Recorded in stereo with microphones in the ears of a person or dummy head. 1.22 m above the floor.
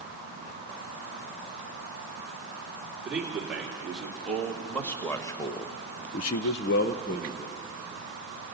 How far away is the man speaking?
About 3.5 m.